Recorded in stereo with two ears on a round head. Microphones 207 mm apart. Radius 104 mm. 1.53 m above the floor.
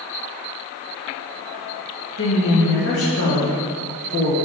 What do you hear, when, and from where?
2.2 s a woman speaking: 65° left (ahead or behind), 1.0 m